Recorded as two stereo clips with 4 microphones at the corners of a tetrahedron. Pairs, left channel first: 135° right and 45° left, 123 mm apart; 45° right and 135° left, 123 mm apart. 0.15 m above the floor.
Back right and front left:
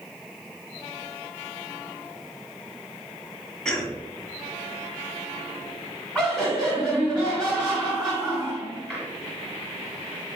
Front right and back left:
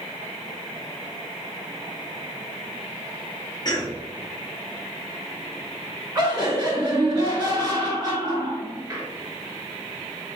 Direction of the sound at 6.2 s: 125° left.